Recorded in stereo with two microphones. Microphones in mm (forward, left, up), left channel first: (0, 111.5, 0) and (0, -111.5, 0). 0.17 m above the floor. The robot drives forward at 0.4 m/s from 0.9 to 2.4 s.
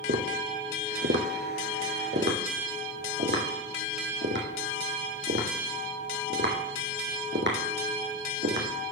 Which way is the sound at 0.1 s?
70° right (ahead or behind).